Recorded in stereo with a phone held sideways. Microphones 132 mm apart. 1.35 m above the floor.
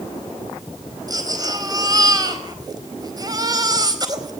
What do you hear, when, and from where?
1.1 s a baby crying: 30° right (ahead or behind), 4.5 m